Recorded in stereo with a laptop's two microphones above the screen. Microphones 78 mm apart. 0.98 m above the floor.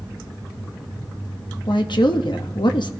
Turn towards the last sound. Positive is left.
turn(degrees=65)  # may be behind; listen again after turning